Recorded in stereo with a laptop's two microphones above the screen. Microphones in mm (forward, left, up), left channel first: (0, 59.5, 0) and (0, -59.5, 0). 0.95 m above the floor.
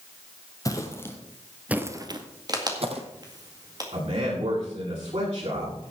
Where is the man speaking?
65° right (ahead or behind), 9.5 m.